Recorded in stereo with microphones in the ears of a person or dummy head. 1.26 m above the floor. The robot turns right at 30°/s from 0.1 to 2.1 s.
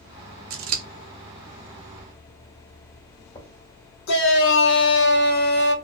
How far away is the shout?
About 0.7 m.